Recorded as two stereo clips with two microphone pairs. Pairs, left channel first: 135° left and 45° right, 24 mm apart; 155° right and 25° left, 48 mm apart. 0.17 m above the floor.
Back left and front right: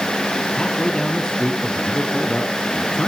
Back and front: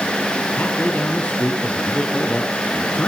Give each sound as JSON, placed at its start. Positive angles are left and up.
{"t": 0.6, "sound": "a man speaking", "azimuth_deg": 165, "distance_m": 2.0}